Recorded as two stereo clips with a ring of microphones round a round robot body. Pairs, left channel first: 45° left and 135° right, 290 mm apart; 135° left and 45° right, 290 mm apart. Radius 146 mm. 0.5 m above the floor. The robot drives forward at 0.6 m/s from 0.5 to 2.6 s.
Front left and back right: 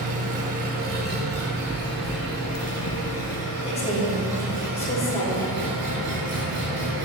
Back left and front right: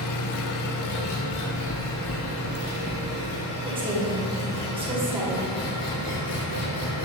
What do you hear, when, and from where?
0.0 s an engine running: 160° left, 0.7 m; by 7.1 s 175° left, 2.0 m
1.3 s footsteps: 160° left, 0.7 m; by 3.0 s 65° left, 0.8 m
3.6 s a woman speaking: 5° left, 1.2 m